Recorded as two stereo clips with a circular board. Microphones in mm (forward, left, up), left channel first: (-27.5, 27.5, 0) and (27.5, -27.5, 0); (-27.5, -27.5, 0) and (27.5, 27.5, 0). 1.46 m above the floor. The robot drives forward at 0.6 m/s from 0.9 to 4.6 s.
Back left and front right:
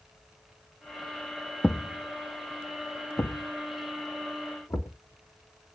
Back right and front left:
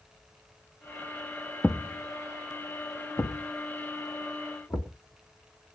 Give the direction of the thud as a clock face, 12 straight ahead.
6 o'clock.